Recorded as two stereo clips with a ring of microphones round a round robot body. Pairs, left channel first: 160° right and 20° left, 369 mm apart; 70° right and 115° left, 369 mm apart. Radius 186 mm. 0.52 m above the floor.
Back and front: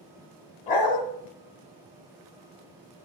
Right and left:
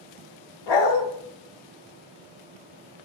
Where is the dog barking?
85° right, 1.3 m.